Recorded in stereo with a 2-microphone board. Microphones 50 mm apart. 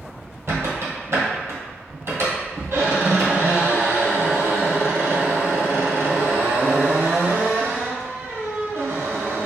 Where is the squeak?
55° right (ahead or behind), 1.6 m.